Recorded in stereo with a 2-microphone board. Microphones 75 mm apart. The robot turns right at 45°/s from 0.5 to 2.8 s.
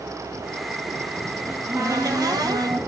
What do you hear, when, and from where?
1.5 s a cupboard door: 140° right, 1.3 m; by 2.8 s 80° right, 1.3 m